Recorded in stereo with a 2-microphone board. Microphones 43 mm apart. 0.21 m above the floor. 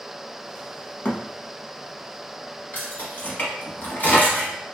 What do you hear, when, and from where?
1.1 s a thud: 50° left (ahead or behind), 0.7 m
2.7 s keys jangling: 45° left (ahead or behind), 1.2 m